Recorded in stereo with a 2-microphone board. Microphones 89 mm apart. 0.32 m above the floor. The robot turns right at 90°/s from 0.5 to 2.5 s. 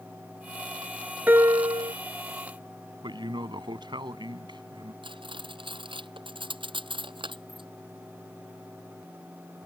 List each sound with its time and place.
1.3 s a piano: 160° right; by 1.9 s 100° right
3.0 s a man speaking: 60° right (ahead or behind)
5.0 s cutlery clinking: 70° right (ahead or behind)